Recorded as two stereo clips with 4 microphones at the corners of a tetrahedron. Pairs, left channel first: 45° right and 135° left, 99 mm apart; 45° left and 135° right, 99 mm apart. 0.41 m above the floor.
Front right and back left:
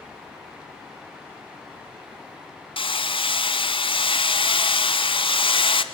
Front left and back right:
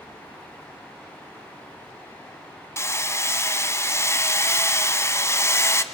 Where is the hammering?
20° right, 1.1 m.